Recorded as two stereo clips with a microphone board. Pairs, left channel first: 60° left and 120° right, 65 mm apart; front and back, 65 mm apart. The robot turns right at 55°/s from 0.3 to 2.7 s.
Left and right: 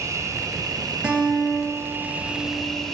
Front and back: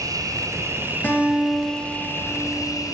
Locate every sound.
0.0 s an insect: 155° right, 1.1 m; by 3.0 s 25° right, 1.1 m
1.0 s a guitar: 50° right, 2 m; by 2.9 s 40° left, 2 m